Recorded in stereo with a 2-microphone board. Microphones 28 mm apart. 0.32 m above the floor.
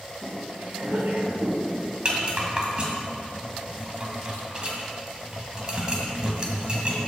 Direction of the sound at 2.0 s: 30° right (ahead or behind).